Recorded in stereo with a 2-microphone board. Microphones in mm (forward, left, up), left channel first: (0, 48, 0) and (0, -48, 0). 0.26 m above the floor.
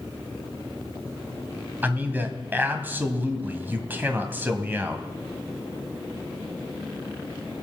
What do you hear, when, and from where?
1.8 s a man speaking: 20° right (ahead or behind), 1.7 m